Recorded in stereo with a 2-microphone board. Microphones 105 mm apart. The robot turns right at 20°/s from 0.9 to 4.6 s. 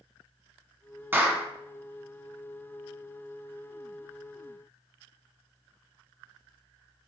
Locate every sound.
1.1 s a clap: 20° right (ahead or behind), 0.8 m